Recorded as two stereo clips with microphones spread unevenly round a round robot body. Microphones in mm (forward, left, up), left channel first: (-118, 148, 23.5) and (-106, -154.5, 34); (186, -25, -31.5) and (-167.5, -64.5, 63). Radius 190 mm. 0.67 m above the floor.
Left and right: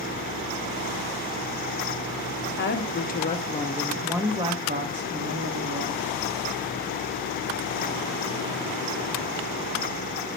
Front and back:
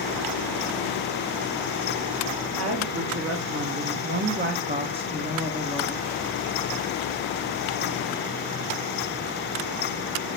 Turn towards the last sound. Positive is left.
turn(degrees=-70)